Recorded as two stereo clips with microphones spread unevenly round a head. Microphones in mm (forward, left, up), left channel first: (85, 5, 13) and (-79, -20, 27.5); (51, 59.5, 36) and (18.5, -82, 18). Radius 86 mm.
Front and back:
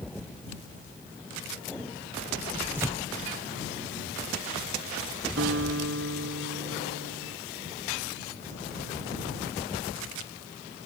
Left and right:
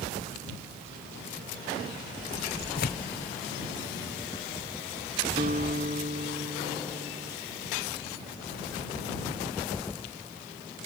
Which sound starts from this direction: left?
Tearing paper, at 2.8 s.